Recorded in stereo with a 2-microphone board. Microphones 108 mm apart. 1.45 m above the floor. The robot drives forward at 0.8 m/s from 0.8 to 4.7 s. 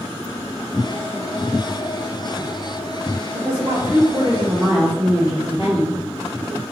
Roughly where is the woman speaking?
Right.